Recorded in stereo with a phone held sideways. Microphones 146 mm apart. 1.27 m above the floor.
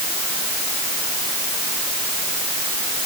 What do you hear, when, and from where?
Only background noise.